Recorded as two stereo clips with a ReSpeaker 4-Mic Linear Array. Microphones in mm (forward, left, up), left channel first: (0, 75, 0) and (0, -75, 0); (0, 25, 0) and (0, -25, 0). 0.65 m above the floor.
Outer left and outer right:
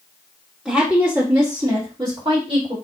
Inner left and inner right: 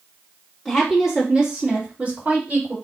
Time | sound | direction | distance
0.7 | a woman speaking | 5° right (ahead or behind) | 1.3 m